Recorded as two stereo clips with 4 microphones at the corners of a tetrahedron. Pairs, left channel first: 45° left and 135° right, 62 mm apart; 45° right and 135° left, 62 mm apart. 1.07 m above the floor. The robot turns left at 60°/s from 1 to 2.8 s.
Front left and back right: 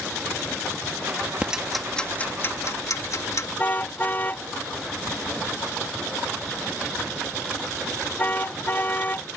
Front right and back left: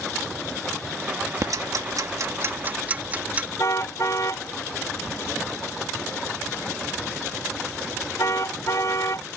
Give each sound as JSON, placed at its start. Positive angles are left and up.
{"t": 1.4, "sound": "ticking", "azimuth_deg": 155}
{"t": 3.6, "sound": "a car horn", "azimuth_deg": -15}